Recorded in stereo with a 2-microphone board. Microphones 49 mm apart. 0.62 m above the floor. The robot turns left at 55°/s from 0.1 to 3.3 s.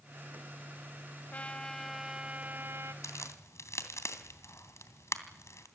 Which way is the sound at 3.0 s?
80° left.